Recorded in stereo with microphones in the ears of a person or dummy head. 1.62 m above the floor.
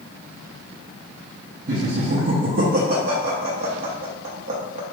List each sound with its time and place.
1.7 s laughter: 50° right (ahead or behind), 0.6 m